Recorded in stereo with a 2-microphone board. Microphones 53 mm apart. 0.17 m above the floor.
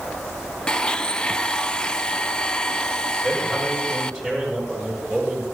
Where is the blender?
15° left (ahead or behind), 0.6 m.